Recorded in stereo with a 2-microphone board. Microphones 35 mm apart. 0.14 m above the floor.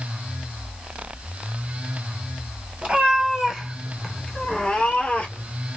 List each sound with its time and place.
2.8 s a cat meowing: 35° right (ahead or behind), 1.1 m; by 5.5 s 45° left (ahead or behind), 1.2 m